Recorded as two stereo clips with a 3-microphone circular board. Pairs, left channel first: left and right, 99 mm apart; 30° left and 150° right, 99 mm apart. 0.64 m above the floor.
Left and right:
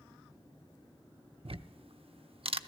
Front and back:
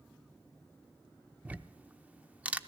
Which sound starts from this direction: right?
Ticking, at 1.4 s.